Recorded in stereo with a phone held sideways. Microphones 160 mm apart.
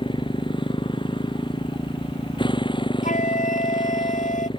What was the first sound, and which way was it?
A motorcycle, 30° left (ahead or behind).